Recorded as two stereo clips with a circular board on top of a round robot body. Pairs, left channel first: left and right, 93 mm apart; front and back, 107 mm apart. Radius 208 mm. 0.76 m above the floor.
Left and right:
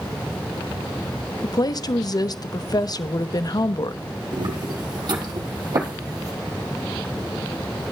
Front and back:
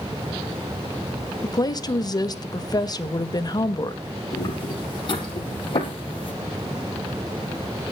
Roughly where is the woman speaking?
Ahead left.